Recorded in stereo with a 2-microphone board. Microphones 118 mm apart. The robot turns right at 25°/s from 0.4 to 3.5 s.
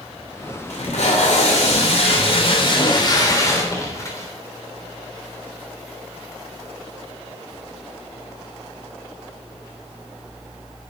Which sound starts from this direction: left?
Tape being pulled, at 0.7 s.